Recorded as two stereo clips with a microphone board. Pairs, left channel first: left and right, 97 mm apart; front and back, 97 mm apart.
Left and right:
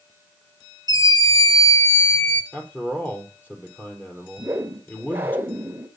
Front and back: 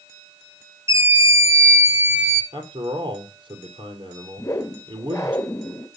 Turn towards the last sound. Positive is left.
turn(degrees=-35)